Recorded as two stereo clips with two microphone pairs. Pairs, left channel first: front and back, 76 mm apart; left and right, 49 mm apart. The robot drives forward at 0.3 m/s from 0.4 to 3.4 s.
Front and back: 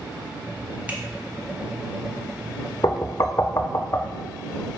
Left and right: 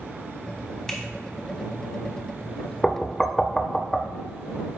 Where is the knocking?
15° left, 0.7 m; by 4.1 s 20° left, 0.5 m.